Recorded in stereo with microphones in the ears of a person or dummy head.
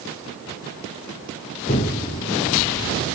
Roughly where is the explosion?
Left.